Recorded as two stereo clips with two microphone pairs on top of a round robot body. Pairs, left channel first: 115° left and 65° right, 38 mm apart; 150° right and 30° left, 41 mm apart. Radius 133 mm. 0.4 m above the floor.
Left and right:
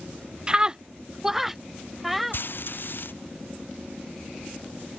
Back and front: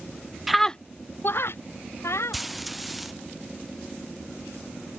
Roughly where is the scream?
Ahead right.